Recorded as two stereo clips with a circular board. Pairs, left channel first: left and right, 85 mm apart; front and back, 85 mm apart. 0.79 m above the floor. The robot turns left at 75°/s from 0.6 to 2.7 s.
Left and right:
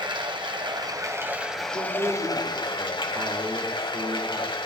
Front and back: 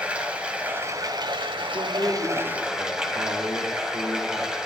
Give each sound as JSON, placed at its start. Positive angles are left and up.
{"t": 0.0, "sound": "running water", "azimuth_deg": -105, "distance_m": 1.5}
{"t": 1.7, "sound": "a man speaking", "azimuth_deg": -55, "distance_m": 3.0}